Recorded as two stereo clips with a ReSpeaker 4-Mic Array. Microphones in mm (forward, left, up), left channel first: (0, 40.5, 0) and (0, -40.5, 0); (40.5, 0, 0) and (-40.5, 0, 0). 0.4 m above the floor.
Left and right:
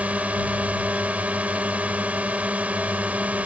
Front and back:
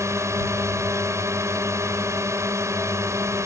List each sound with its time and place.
0.0 s a drone: 155° right